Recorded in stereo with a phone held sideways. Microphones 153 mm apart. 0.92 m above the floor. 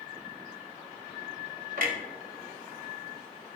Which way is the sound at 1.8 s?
65° right (ahead or behind).